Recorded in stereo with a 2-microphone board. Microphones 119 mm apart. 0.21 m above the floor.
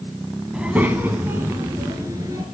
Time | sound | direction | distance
0.5 | a child speaking | 5° right (ahead or behind) | 1.2 m